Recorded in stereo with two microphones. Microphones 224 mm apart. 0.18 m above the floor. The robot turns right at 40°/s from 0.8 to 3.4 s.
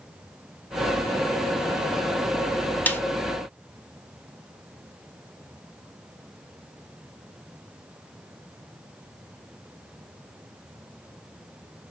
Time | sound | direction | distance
2.9 | a snare drum | 10° left (ahead or behind) | 0.6 m